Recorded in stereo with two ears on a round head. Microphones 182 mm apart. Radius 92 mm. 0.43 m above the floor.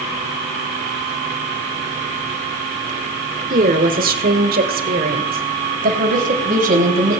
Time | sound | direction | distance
3.5 | a woman speaking | 40° right (ahead or behind) | 1.4 m